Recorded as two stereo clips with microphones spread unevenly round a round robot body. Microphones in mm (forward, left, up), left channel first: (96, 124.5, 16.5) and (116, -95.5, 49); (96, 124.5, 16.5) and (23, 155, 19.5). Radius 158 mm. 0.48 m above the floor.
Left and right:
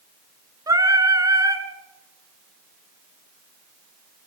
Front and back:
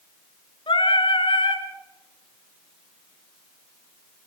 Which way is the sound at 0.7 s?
10° right.